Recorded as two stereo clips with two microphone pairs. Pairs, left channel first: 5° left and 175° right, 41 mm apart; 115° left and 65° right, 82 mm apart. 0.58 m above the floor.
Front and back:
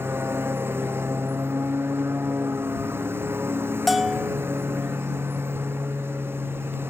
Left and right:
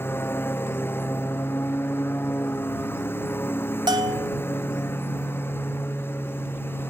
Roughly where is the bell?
Right.